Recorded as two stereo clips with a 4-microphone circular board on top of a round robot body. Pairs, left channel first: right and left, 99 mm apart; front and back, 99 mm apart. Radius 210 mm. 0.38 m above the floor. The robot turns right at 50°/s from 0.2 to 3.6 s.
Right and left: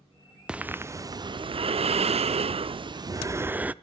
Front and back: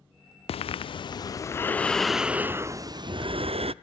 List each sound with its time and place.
0.5 s breathing: 10° left, 0.5 m; by 3.7 s 165° left, 0.5 m